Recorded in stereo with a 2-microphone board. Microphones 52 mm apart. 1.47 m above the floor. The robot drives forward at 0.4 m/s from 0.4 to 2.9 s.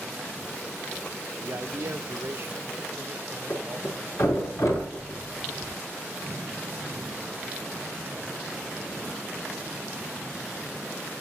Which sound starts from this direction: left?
A thud, at 3.5 s.